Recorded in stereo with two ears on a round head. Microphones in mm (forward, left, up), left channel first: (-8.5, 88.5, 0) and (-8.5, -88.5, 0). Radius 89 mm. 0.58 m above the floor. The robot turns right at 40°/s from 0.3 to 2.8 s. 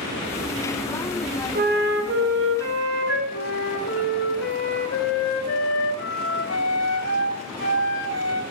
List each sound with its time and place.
1.6 s a flute: 130° right, 3 m; by 3.2 s 80° right, 3 m
3.3 s a flute: 65° left (ahead or behind), 2 m